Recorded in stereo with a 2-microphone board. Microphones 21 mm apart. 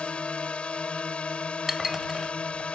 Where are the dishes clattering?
15° right (ahead or behind).